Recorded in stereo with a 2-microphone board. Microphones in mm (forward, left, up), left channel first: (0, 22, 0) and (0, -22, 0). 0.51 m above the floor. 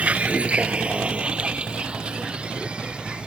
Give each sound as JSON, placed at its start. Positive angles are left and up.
{"t": 0.0, "sound": "a vehicle", "side_deg": -30}